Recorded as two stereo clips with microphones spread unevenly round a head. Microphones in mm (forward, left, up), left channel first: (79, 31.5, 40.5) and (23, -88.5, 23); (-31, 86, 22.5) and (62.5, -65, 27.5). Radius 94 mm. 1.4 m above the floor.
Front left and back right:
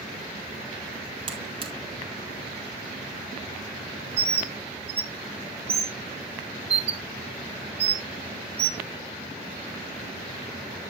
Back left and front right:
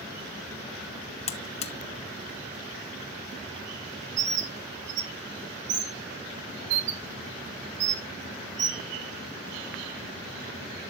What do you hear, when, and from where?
1.3 s a buzzer: straight behind, 1.0 m
4.2 s a bird: 75° right, 1.9 m